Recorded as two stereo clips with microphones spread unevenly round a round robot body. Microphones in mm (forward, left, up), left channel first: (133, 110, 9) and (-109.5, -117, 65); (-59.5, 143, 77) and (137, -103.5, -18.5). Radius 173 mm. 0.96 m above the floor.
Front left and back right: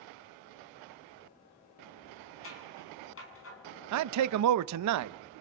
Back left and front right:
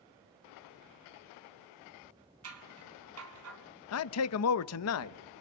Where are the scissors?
10° right, 4.5 m.